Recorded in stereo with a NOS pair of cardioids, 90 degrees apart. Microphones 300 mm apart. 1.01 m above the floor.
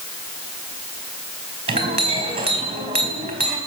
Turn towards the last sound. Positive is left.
turn(degrees=-20)